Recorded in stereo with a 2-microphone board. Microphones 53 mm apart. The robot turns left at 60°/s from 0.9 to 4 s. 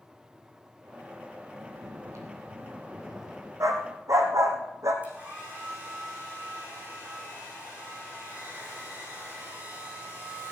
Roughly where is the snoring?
Right.